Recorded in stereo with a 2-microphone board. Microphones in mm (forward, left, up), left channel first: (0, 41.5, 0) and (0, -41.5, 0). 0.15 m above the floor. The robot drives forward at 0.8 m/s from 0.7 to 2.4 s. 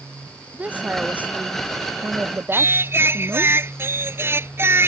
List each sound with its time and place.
0.5 s a woman speaking: 20° right (ahead or behind)
2.5 s singing: 30° right (ahead or behind)